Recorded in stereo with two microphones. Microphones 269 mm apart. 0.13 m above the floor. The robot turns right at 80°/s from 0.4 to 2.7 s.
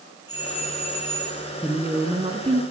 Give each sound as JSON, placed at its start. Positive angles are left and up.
{"t": 0.3, "sound": "a doorbell", "azimuth_deg": 60, "distance_m": 4.5}
{"t": 1.6, "sound": "a woman speaking", "side_deg": 0, "distance_m": 1.2}